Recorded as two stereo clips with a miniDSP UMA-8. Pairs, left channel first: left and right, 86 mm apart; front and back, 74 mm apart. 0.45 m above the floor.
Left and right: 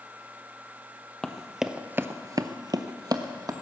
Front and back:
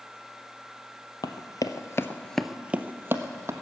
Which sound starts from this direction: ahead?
Running footsteps, at 1.2 s.